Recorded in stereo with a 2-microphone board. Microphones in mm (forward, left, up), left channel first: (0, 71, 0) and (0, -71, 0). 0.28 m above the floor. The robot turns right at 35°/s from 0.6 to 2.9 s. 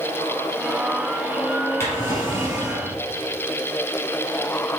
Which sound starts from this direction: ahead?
A drawer, at 1.8 s.